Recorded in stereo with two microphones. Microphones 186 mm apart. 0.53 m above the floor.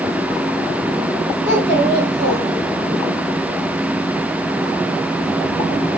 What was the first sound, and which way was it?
A child speaking, 70° right (ahead or behind).